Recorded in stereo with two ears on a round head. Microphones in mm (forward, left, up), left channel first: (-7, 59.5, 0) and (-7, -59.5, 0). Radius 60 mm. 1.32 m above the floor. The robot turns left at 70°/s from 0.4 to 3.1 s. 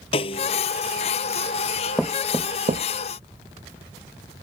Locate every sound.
0.1 s a snare drum: 40° left (ahead or behind); by 0.6 s 30° left (ahead or behind)
2.0 s knocking: 5° left (ahead or behind); by 2.9 s 55° right (ahead or behind)